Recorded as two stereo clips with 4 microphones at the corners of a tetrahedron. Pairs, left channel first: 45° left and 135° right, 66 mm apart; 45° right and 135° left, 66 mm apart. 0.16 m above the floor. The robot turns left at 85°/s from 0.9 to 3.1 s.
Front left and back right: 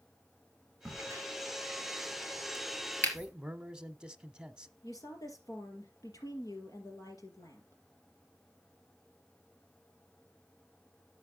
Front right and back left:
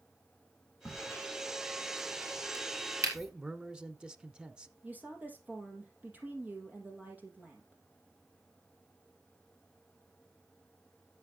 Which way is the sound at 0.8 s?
70° right.